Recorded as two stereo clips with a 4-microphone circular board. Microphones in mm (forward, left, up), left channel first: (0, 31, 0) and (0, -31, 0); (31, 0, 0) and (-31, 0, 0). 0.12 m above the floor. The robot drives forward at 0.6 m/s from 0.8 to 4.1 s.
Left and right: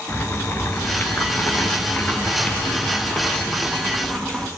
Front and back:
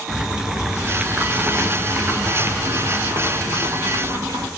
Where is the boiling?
105° left, 1.3 m; by 4.5 s 160° left, 2.5 m.